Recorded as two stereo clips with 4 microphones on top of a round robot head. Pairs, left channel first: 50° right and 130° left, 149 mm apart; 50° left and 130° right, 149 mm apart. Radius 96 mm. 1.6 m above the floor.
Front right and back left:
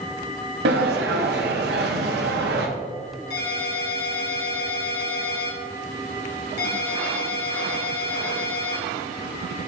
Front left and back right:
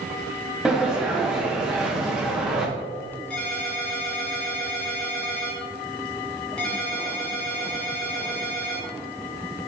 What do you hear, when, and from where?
0.7 s a sliding door: 145° left, 0.8 m
3.3 s a ringtone: 35° right, 1.7 m